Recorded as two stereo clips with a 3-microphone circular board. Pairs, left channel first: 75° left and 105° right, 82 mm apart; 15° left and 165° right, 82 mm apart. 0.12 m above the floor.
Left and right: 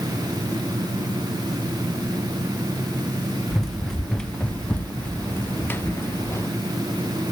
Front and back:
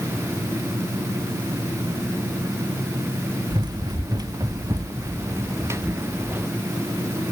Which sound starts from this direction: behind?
Running footsteps, at 3.5 s.